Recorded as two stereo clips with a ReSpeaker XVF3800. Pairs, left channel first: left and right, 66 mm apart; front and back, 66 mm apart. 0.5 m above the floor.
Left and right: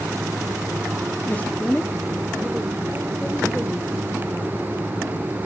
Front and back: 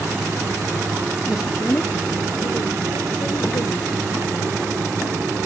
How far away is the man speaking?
About 0.8 m.